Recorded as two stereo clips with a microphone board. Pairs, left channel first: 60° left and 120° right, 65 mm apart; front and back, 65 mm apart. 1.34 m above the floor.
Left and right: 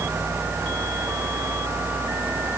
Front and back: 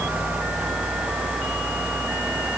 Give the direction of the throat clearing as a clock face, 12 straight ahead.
No throat clearing in this recording.